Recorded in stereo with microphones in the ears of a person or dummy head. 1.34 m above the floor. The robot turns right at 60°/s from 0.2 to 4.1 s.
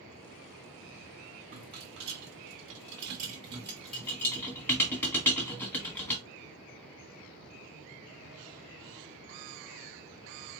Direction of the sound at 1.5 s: 40° right (ahead or behind).